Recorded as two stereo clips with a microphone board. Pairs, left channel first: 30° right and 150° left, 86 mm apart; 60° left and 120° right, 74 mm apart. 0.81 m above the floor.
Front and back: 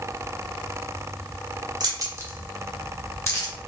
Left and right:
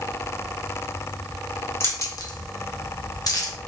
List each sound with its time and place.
1.8 s keys jangling: 115° left, 0.8 m; by 3.5 s 15° left, 1.0 m